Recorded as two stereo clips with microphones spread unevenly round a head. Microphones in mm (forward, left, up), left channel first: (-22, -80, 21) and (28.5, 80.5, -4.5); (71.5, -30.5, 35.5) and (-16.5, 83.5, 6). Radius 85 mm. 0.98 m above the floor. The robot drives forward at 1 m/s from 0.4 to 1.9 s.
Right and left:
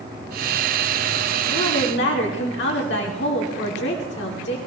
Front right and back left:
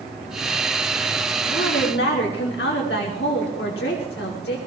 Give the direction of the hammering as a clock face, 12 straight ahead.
No hammering in this recording.